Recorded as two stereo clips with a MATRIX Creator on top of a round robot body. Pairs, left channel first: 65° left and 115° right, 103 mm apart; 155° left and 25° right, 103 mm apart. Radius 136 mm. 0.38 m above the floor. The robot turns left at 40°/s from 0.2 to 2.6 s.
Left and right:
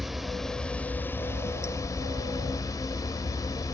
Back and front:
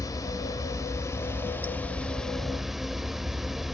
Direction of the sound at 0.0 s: 160° left.